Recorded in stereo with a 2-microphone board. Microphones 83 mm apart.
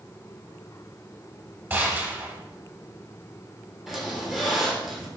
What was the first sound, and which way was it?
A gunshot, 25° right (ahead or behind).